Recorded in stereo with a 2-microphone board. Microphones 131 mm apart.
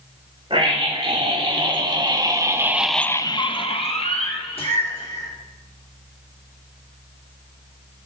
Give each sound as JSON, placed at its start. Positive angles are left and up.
{"t": 0.5, "sound": "a scream", "side_deg": -40, "distance_m": 3.0}